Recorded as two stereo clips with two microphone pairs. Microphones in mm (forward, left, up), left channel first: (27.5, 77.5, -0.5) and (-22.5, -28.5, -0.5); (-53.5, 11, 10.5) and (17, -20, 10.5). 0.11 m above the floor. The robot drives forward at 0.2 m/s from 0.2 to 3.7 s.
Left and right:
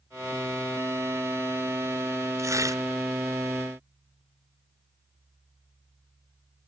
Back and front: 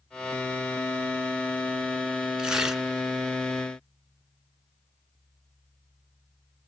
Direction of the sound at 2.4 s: 90° right.